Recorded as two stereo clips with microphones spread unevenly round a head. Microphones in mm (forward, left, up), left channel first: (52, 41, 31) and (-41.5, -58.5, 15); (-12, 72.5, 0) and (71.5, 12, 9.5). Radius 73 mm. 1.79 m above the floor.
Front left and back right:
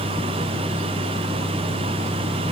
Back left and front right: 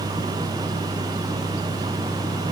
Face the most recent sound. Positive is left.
No sound to turn to.